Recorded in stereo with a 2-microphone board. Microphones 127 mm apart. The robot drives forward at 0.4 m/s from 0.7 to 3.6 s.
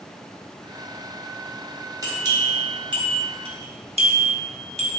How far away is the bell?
About 0.9 m.